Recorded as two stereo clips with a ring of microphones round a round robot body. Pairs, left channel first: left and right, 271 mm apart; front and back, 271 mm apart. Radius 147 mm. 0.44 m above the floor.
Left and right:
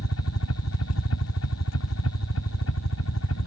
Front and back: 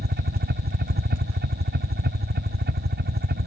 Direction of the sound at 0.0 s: 130° left.